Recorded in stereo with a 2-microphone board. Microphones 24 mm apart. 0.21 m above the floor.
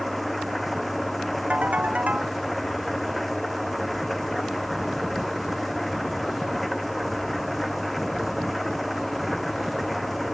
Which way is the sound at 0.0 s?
5° left (ahead or behind).